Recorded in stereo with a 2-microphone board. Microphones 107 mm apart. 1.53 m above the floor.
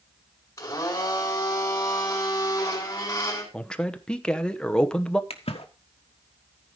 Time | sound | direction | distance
0.6 | a blender | 30° left (ahead or behind) | 5 m
3.5 | a man speaking | 10° left (ahead or behind) | 0.9 m
5.3 | a splash | 80° left | 1.3 m